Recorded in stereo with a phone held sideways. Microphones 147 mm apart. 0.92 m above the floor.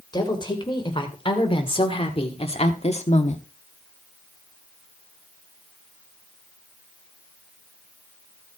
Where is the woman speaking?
30° left (ahead or behind), 3 m; by 3.4 s 55° left (ahead or behind), 1.4 m.